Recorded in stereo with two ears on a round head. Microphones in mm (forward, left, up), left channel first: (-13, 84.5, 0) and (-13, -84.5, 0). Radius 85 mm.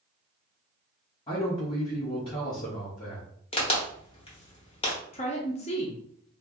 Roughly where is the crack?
Left.